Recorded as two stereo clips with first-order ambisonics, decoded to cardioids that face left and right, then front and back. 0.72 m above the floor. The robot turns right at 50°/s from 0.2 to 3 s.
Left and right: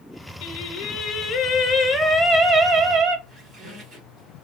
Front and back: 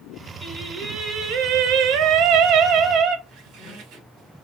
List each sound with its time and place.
0.4 s singing: 95° left, 0.8 m; by 3.2 s 135° right, 0.8 m
3.3 s a squeak: 145° right, 1.5 m